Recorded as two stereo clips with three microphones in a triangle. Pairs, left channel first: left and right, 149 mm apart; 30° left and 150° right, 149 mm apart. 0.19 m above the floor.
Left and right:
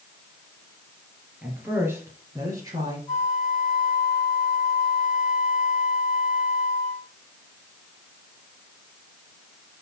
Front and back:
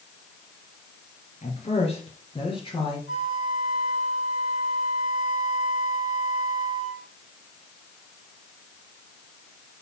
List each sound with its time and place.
1.4 s a woman speaking: 10° right, 2.5 m; by 3.0 s 30° right, 3 m
3.1 s a flute: 10° right, 3.5 m